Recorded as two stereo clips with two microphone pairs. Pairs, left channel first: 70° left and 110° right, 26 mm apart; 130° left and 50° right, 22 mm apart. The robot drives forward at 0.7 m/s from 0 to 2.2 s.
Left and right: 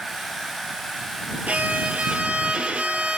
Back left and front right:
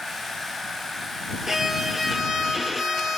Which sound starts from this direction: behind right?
A violin, at 1.5 s.